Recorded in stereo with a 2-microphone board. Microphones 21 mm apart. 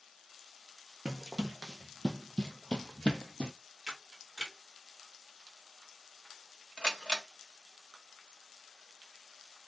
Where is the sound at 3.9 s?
15° right (ahead or behind), 1.2 m.